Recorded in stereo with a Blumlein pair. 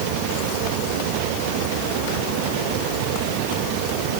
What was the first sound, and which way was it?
Only background noise.